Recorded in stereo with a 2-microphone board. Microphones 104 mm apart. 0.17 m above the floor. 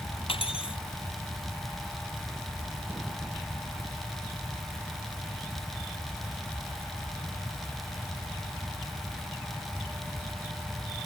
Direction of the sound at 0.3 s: 60° left (ahead or behind).